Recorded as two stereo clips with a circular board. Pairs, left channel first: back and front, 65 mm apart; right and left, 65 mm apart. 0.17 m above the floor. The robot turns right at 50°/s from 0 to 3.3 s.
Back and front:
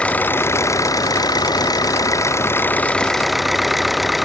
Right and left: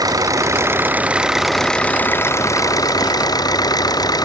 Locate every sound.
0.0 s an engine running: 105° left; by 4.3 s 90° right